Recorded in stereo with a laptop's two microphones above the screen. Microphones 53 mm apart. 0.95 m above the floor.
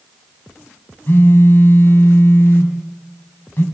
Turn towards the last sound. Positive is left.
turn(degrees=45)  # may be behind; listen again after turning